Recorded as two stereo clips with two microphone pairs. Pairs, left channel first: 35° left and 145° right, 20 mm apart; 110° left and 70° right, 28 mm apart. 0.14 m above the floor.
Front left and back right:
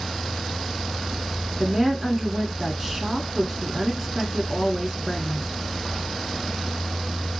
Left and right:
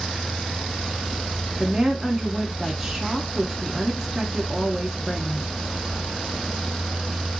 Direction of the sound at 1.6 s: 125° right.